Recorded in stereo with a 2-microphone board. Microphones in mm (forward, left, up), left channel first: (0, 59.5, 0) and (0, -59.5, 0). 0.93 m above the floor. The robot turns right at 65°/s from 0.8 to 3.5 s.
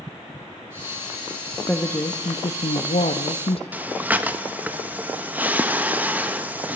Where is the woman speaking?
10° left, 0.8 m; by 3.6 s 130° left, 0.8 m.